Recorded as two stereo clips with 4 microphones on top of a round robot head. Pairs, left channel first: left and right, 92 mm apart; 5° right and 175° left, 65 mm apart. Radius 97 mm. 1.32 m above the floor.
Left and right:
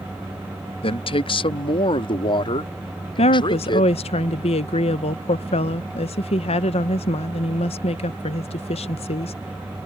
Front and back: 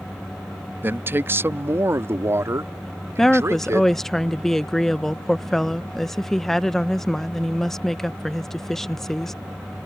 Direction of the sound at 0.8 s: 115° left.